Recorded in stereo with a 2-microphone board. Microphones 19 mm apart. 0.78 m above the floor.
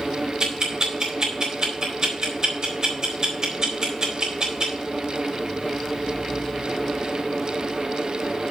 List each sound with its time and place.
0.4 s ticking: 35° right (ahead or behind), 4 m